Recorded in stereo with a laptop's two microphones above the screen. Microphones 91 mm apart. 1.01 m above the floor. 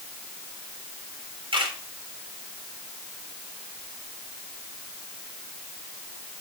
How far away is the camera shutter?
About 2.5 m.